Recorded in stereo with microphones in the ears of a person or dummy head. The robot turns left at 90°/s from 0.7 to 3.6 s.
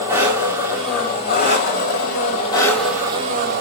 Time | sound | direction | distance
0.0 | an engine running | 165° right | 1.8 m